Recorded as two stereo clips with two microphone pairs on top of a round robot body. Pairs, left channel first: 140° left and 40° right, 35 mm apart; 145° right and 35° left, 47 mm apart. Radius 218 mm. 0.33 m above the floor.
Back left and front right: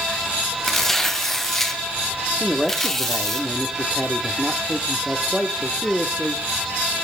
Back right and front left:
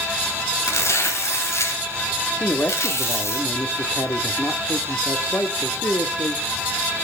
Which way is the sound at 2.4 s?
130° right.